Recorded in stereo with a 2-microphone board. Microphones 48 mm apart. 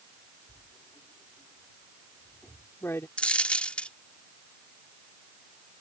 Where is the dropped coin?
25° left (ahead or behind).